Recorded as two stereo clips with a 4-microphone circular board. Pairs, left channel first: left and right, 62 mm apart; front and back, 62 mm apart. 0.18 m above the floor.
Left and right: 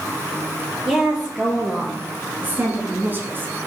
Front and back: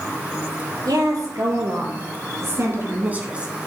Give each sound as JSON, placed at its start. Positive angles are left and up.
{"t": 0.8, "sound": "a woman speaking", "azimuth_deg": -160, "distance_m": 3.0}